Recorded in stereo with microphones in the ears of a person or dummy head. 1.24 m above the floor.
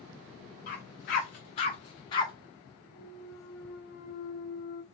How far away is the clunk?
About 0.9 m.